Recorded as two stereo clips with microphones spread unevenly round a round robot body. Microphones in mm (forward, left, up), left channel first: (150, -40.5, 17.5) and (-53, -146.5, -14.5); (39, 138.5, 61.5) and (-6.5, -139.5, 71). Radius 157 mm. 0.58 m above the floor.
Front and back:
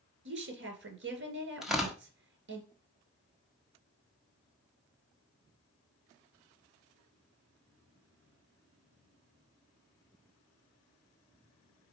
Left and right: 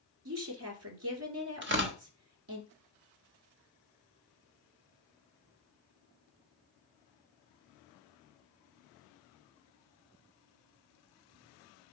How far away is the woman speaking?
About 2.5 m.